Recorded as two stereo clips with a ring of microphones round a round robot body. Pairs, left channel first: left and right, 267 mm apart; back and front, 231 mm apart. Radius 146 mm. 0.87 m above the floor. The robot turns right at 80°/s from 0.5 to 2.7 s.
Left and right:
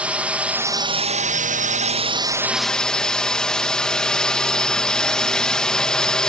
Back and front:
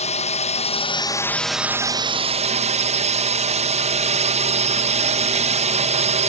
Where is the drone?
170° right; by 6.3 s 5° left.